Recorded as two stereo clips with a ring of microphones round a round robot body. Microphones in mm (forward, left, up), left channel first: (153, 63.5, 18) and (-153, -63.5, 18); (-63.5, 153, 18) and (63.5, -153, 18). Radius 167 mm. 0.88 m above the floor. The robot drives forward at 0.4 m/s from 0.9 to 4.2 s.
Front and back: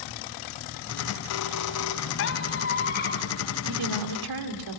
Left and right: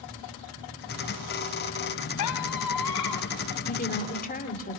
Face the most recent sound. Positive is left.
turn(degrees=180)